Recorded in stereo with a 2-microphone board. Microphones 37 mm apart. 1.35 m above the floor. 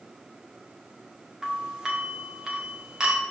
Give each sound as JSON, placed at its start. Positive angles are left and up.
{"t": 1.4, "sound": "a doorbell", "side_deg": -15, "distance_m": 1.7}